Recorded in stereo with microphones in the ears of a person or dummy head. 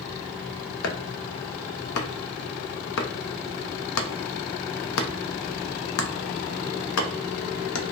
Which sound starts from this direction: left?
Chopping, at 0.8 s.